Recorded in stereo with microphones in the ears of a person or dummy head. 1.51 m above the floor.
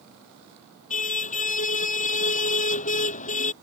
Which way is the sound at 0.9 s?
45° left (ahead or behind).